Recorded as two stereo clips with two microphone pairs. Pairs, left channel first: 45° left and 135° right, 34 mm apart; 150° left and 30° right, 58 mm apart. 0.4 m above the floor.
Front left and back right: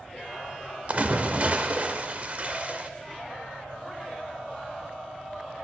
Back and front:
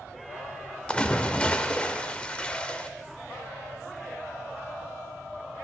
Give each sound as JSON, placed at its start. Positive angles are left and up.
{"t": 0.9, "sound": "a splash", "azimuth_deg": -145, "distance_m": 0.6}